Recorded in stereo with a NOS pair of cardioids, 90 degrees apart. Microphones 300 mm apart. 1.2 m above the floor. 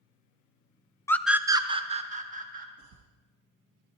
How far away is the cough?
About 1.0 m.